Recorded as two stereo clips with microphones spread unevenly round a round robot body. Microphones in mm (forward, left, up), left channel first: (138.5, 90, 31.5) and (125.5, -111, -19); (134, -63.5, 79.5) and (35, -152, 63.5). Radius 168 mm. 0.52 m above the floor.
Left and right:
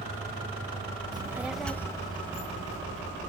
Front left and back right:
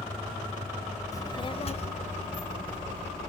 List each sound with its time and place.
1.1 s a child speaking: 25° right, 1.6 m; by 3.3 s 35° left, 3.5 m